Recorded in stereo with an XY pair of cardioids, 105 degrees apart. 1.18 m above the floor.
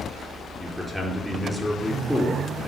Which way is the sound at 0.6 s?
10° left.